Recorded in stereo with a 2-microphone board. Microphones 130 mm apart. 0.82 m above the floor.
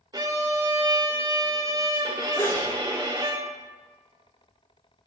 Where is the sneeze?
15° left (ahead or behind), 0.6 m.